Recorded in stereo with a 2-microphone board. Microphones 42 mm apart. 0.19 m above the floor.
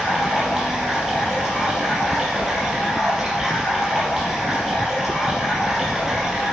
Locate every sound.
0.0 s running water: 5° right (ahead or behind), 4.5 m